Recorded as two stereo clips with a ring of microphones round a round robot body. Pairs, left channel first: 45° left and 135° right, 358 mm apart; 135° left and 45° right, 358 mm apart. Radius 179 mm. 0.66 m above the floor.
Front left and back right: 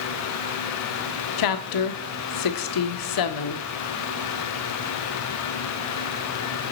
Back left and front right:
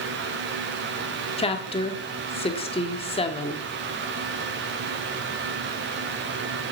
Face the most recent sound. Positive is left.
turn(degrees=65)